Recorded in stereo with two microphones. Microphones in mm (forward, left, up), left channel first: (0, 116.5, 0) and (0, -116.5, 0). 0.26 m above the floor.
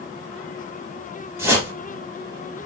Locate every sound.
1.4 s a whoosh: 10° right (ahead or behind), 5 m